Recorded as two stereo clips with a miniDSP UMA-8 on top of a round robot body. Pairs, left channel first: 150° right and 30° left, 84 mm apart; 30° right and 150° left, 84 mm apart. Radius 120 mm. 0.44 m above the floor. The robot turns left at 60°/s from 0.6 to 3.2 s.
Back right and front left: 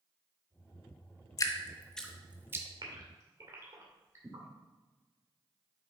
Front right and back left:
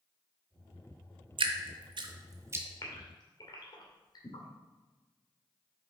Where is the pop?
No pop in this recording.